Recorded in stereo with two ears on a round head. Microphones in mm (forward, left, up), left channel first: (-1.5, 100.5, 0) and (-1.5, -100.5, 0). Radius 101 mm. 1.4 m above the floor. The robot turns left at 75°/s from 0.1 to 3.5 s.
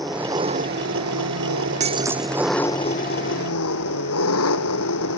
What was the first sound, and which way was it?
An engine running, straight ahead.